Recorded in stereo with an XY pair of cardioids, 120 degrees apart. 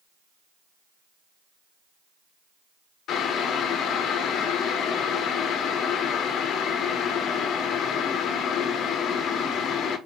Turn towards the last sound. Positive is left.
turn(degrees=65)